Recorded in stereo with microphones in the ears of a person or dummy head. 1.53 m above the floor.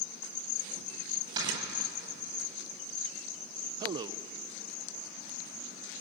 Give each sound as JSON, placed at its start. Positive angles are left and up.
{"t": 1.4, "sound": "snoring", "side_deg": -25, "distance_m": 9.5}
{"t": 3.8, "sound": "a man speaking", "side_deg": -25, "distance_m": 0.7}